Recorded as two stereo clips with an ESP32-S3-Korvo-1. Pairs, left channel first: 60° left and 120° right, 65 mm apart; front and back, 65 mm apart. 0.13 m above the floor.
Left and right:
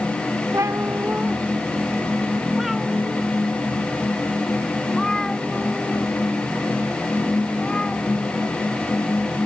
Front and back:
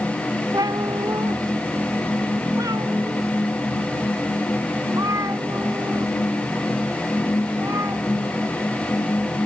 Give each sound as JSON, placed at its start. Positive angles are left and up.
{"t": 0.5, "sound": "a cat meowing", "azimuth_deg": -160}